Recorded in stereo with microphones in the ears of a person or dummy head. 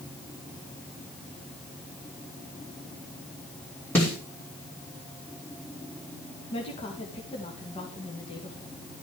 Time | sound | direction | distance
4.0 | a snare drum | 5° left (ahead or behind) | 4 m
6.5 | a woman speaking | 20° left (ahead or behind) | 2.5 m